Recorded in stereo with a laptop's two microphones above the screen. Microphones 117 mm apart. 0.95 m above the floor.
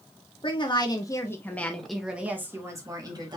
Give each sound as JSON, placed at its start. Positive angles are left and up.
{"t": 0.4, "sound": "a woman speaking", "side_deg": 45, "distance_m": 1.0}